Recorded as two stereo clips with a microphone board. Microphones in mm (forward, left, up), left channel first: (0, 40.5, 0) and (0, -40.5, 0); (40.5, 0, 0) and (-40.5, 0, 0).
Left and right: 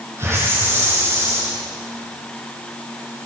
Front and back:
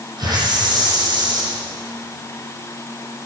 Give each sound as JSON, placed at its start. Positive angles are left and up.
{"t": 0.2, "sound": "a hiss", "azimuth_deg": -150, "distance_m": 7.0}